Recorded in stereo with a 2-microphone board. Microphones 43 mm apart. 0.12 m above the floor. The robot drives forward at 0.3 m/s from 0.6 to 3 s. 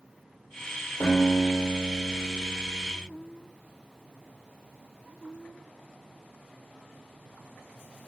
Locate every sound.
1.0 s a guitar: 45° left (ahead or behind), 1.8 m; by 2.9 s 50° left (ahead or behind), 1.6 m